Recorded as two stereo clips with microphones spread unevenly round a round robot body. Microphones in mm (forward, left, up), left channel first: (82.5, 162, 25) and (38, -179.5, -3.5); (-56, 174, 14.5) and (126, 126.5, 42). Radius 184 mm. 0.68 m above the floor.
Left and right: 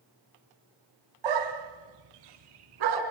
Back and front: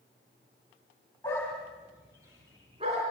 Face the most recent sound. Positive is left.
turn(degrees=-90)